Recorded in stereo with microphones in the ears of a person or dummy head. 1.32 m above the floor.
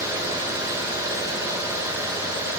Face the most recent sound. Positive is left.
No sound to turn to.